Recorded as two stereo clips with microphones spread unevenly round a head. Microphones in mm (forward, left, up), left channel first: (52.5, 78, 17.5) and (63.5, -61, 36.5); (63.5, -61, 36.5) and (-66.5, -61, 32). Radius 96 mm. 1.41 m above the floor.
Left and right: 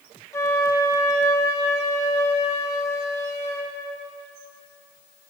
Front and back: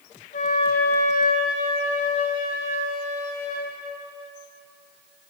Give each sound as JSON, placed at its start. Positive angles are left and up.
{"t": 0.3, "sound": "a flute", "azimuth_deg": 20, "distance_m": 0.7}